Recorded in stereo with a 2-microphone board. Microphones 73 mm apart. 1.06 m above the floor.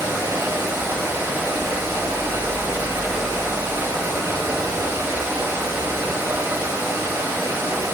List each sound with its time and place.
0.0 s running water: 35° right (ahead or behind), 1.0 m